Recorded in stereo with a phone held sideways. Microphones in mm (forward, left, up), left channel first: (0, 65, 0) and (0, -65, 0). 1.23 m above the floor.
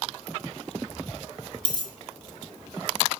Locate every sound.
1.6 s a dropped coin: 35° right (ahead or behind), 1.6 m